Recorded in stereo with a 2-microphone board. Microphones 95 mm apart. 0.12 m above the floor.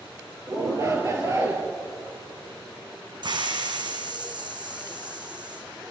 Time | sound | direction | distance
0.5 | a shout | 35° right (ahead or behind) | 3 m
3.2 | a hiss | 55° right (ahead or behind) | 3 m